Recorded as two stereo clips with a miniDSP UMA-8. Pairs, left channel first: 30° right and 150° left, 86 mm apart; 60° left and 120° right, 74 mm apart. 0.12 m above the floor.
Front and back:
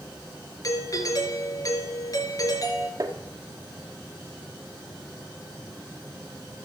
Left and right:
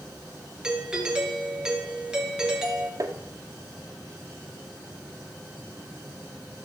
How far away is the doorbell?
About 2.5 m.